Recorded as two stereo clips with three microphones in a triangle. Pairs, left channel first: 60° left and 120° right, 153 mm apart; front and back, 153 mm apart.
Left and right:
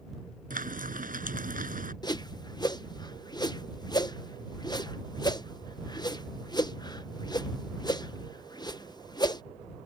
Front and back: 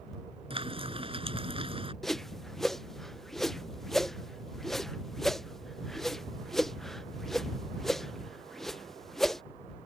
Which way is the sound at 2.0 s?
85° left.